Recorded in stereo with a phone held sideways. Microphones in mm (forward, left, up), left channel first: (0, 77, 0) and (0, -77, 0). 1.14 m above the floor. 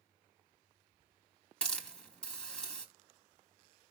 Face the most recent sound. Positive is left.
turn(degrees=5)  # may be behind; listen again after turning